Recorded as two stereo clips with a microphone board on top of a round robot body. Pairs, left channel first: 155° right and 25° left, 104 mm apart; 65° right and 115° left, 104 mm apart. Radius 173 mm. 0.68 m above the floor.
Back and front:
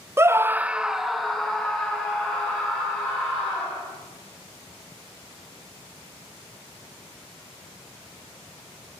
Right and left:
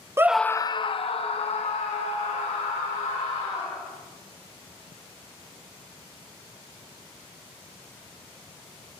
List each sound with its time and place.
0.2 s a scream: 70° left, 0.5 m; by 3.8 s 75° right, 3 m